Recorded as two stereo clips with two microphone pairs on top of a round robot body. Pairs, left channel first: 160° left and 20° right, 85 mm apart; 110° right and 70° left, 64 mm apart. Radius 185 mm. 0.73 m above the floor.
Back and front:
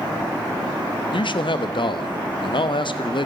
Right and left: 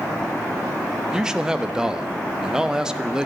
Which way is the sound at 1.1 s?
145° left.